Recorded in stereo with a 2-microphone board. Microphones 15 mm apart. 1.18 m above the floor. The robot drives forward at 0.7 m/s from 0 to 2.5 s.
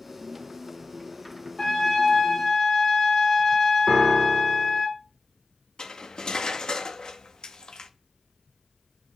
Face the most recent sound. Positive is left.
turn(degrees=55)  # may be behind; listen again after turning